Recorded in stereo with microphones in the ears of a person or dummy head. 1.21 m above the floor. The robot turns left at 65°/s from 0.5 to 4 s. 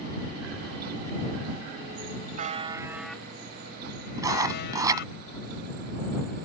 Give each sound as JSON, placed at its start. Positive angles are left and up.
{"t": 2.4, "sound": "a buzzer", "azimuth_deg": -130}
{"t": 4.2, "sound": "writing", "side_deg": -20}